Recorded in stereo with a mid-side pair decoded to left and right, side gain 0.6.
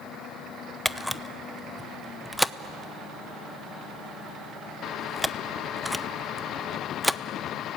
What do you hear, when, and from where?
0.8 s a camera shutter: straight ahead, 0.7 m